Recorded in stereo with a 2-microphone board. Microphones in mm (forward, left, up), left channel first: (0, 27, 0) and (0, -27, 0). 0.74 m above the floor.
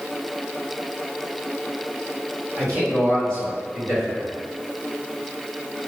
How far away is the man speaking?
About 1.4 m.